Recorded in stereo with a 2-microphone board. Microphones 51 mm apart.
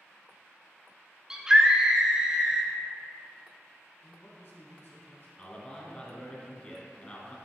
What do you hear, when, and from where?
1.3 s a scream: 15° right (ahead or behind), 1.2 m
4.0 s a man speaking: 50° left (ahead or behind), 1.9 m
5.4 s a man speaking: 25° left (ahead or behind), 1.8 m